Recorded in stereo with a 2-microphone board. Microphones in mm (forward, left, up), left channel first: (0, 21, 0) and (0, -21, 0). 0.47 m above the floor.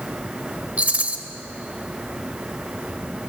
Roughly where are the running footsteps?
No running footsteps in this recording.